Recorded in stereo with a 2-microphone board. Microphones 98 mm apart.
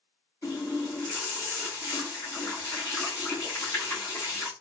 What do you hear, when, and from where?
0.4 s a running tap: 35° left (ahead or behind), 1.8 m